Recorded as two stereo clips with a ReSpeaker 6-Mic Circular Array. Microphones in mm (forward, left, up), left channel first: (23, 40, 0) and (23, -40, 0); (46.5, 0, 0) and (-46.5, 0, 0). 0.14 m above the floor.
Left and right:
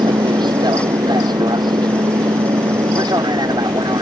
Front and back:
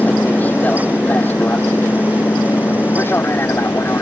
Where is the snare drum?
I don't hear a snare drum.